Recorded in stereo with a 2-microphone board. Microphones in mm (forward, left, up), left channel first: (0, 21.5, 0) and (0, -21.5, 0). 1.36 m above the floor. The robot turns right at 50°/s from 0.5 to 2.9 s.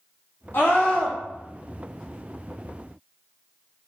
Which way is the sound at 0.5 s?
120° left.